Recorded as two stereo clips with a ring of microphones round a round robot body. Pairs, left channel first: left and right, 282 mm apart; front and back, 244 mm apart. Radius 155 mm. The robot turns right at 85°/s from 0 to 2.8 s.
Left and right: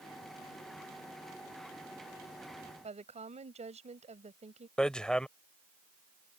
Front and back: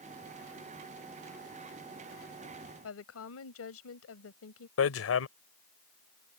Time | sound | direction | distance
2.8 | a woman speaking | 25° right | ?
4.8 | hammering | 5° left | ?